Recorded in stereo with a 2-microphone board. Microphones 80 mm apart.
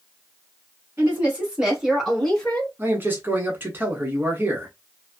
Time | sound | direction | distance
1.0 | a woman speaking | 25° right (ahead or behind) | 1.7 m
2.8 | a man speaking | 25° right (ahead or behind) | 1.1 m